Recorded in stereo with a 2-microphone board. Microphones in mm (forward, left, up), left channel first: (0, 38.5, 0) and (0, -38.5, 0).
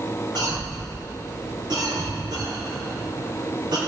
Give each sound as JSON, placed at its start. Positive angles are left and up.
{"t": 0.3, "sound": "a cough", "side_deg": -85, "distance_m": 4.0}